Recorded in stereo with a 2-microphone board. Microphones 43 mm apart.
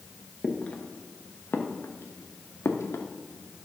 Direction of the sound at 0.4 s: 20° left (ahead or behind).